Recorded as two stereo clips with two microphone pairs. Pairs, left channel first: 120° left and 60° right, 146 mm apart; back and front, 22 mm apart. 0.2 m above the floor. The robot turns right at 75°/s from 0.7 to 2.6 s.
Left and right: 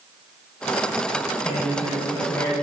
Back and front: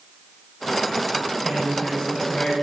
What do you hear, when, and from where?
1.4 s a man speaking: 105° left, 1.5 m; by 2.5 s 175° right, 1.5 m